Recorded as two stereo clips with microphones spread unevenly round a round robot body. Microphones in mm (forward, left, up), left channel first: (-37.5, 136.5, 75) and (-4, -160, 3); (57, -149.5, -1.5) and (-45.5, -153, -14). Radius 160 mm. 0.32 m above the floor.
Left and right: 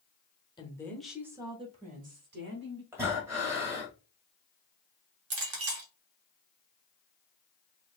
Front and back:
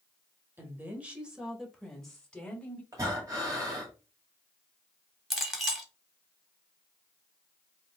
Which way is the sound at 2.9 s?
150° right.